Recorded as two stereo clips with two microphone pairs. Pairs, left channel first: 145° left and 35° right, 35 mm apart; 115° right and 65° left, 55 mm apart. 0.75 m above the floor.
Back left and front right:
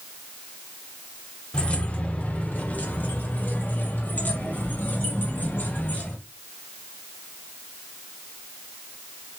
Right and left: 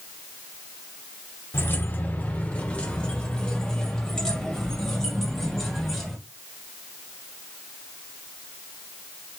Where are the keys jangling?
160° right, 1.0 m; by 6.2 s 160° left, 3 m.